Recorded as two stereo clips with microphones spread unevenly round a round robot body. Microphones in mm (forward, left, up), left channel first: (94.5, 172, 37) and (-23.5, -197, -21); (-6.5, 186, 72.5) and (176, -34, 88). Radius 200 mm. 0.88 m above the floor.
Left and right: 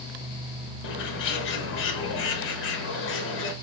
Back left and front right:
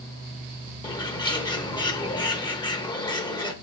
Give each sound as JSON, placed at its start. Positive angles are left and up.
{"t": 0.8, "sound": "a bird", "azimuth_deg": 95, "distance_m": 0.8}